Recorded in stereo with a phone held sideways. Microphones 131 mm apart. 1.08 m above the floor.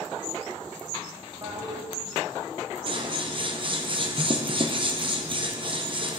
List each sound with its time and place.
1.4 s a toilet flushing: 40° right (ahead or behind), 1.9 m
2.9 s scissors: 40° right (ahead or behind), 0.6 m